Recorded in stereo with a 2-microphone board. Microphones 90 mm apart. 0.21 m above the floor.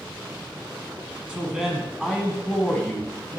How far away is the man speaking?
About 1.9 m.